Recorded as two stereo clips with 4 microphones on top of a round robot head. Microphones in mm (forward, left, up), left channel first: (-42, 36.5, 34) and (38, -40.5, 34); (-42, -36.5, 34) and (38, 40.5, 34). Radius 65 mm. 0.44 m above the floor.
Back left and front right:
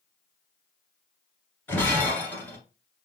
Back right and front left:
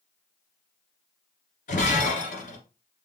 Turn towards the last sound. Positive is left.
turn(degrees=-150)